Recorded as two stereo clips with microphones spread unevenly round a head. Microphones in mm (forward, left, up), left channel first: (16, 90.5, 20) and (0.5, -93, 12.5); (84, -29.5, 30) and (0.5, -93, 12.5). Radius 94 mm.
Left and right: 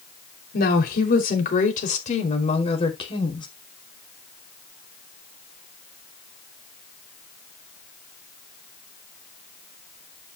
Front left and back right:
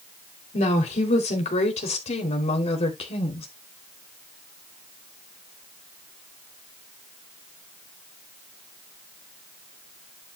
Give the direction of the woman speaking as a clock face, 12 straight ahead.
10 o'clock.